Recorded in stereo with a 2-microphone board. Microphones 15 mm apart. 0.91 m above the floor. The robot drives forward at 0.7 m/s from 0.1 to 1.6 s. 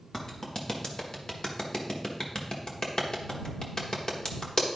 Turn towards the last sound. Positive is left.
turn(degrees=55)  # may be behind; listen again after turning